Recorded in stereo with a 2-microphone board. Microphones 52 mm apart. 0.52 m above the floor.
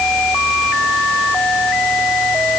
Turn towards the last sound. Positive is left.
No sound to turn to.